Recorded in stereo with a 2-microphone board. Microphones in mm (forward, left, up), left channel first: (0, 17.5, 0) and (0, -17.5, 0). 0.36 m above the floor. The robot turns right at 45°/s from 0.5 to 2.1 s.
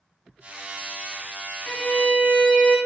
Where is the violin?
55° left (ahead or behind), 1.7 m; by 2.8 s 70° left (ahead or behind), 1.7 m.